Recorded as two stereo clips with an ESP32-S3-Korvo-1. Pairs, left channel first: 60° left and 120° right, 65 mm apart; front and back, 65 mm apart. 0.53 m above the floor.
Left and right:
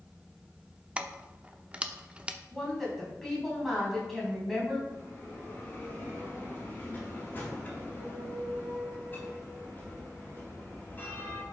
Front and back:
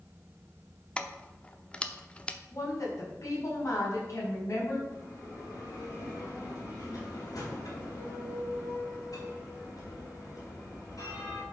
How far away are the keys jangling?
About 0.7 m.